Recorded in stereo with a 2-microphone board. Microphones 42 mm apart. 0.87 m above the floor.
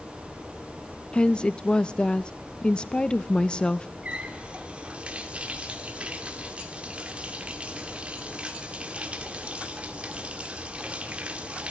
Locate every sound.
1.1 s a woman speaking: 20° left (ahead or behind), 0.5 m
4.0 s a running tap: 25° right (ahead or behind), 1.6 m